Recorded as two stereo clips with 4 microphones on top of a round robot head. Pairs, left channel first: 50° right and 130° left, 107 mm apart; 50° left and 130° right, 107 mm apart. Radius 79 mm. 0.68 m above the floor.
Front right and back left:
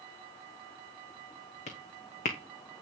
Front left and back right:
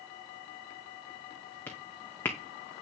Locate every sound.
1.7 s footsteps: 25° right, 2 m